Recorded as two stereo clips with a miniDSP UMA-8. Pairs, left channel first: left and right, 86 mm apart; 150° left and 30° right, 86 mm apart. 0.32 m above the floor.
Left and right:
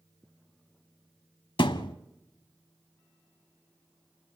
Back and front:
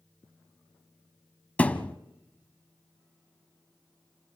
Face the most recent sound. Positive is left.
turn(degrees=80)